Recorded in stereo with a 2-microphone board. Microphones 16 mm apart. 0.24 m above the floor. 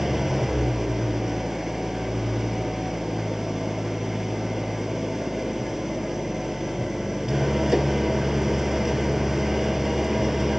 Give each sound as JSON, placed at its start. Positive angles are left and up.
{"t": 0.0, "sound": "an engine running", "side_deg": -15, "distance_m": 1.7}